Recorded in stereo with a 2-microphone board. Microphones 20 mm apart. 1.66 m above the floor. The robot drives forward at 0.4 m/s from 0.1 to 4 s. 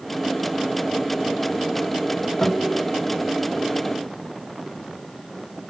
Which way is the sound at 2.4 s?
65° left (ahead or behind).